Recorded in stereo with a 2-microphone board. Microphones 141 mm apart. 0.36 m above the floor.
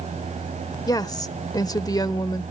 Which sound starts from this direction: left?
A woman speaking, at 0.9 s.